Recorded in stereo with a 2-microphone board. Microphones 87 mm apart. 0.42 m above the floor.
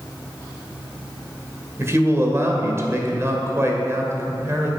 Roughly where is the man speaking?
Right.